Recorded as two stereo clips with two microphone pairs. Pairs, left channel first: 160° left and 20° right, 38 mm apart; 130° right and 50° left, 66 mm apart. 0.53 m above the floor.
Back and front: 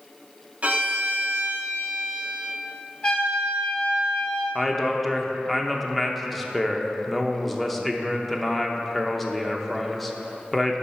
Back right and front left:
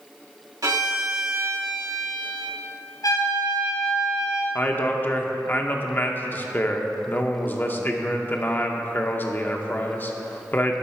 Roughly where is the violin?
Ahead left.